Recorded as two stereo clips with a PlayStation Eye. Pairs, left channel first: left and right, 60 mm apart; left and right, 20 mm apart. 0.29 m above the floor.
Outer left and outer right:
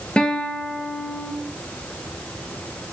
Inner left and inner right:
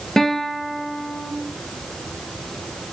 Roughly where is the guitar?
Centre.